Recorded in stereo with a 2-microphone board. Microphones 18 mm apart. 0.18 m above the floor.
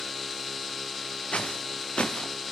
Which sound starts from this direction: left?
Footsteps, at 1.3 s.